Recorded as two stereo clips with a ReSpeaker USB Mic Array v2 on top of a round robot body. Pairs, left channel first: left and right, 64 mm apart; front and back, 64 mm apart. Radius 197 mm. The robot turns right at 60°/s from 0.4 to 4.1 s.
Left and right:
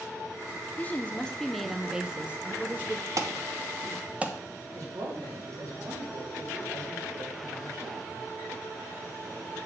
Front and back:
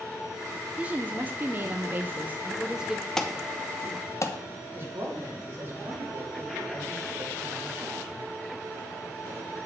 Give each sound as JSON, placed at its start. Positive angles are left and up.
{"t": 0.8, "sound": "a woman speaking", "azimuth_deg": 125, "distance_m": 0.9}
{"t": 3.2, "sound": "an alarm", "azimuth_deg": -80, "distance_m": 1.1}
{"t": 4.8, "sound": "a man speaking", "azimuth_deg": -125, "distance_m": 2.5}